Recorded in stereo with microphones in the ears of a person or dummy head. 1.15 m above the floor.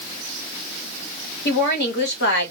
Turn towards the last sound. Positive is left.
turn(degrees=55)  # may be behind; listen again after turning